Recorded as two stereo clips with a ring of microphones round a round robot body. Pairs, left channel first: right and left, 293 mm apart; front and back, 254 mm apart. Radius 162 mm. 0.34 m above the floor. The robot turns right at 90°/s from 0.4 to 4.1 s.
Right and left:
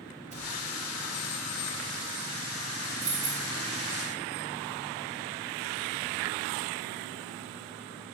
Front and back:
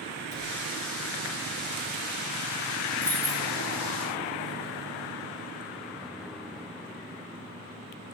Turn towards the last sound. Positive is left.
turn(degrees=170)